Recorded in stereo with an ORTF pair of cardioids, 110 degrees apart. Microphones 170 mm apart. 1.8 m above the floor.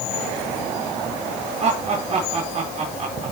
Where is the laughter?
40° right, 4.5 m.